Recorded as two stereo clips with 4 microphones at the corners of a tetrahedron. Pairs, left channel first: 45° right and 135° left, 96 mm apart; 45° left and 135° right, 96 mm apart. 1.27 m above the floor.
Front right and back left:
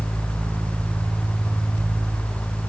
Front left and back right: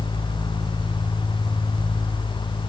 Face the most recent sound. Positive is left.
No sound to turn to.